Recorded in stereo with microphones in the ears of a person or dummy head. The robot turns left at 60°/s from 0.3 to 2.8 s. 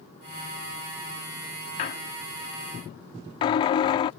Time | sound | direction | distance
1.8 | a squeak | 30° left (ahead or behind) | ?